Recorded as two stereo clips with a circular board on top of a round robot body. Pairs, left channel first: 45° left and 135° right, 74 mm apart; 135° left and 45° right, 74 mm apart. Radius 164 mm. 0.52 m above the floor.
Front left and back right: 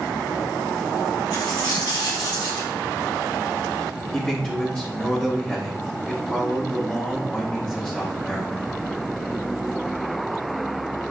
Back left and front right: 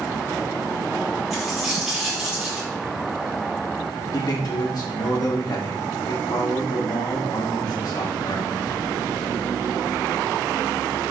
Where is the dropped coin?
45° left, 4 m.